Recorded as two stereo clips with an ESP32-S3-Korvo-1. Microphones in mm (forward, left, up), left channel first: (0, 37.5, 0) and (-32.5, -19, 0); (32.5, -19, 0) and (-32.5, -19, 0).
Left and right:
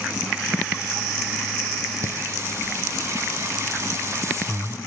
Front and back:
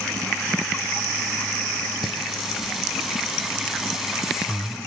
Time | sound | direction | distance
2.0 | singing | 100° right | 1.3 m